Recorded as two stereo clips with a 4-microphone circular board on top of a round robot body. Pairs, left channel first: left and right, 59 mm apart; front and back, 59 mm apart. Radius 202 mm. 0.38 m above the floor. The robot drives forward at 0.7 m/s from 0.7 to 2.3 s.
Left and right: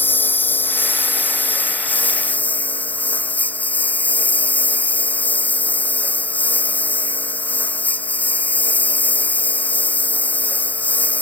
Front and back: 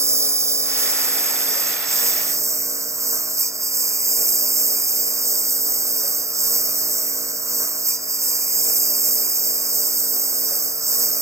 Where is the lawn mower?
145° left; by 11.2 s 150° left.